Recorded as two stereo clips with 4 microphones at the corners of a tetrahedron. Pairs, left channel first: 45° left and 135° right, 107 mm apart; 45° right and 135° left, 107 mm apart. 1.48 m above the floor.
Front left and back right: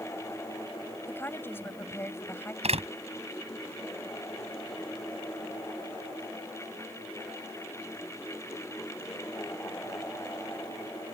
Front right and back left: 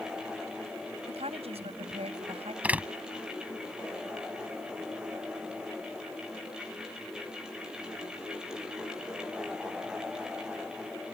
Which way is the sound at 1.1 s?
115° left.